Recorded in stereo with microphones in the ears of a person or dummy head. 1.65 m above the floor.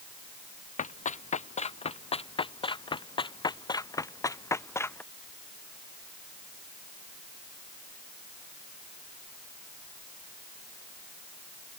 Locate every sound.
0.8 s running footsteps: 40° left (ahead or behind); by 5.0 s 10° left (ahead or behind)